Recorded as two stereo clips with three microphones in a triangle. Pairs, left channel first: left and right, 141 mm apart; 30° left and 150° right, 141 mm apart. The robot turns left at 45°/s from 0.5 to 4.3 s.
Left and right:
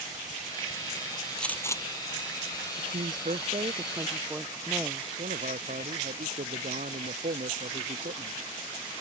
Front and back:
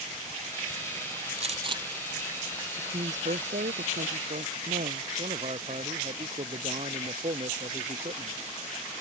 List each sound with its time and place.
1.4 s a gunshot: 175° left; by 1.8 s 155° left
2.8 s a woman speaking: 100° right; by 5.1 s 170° right
5.2 s a man speaking: 110° right